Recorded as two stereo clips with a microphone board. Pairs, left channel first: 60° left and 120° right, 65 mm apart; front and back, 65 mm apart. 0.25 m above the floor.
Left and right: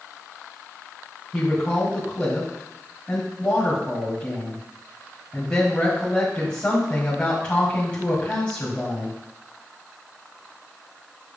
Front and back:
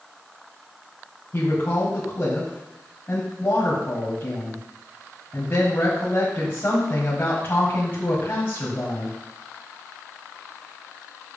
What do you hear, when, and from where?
1.3 s a woman speaking: straight ahead, 1.8 m